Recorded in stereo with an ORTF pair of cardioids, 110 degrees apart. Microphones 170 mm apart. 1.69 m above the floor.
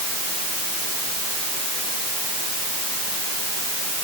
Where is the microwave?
No microwave in this recording.